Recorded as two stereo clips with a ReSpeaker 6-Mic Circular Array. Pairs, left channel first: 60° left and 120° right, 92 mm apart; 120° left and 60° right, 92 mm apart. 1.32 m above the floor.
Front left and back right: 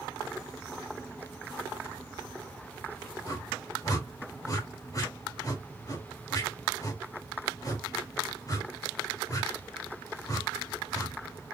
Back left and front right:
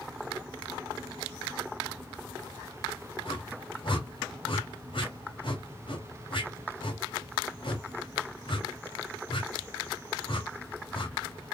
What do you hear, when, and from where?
3.2 s a whoosh: 105° left, 1.9 m